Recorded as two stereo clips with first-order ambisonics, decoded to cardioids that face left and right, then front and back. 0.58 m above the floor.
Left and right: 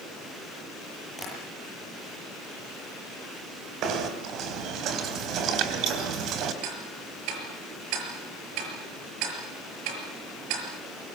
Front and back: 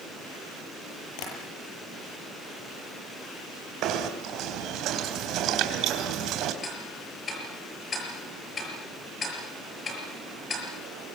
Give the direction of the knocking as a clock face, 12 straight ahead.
5 o'clock.